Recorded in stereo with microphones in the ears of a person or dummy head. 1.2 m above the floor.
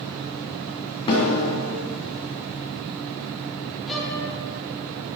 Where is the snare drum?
25° left (ahead or behind), 2 m.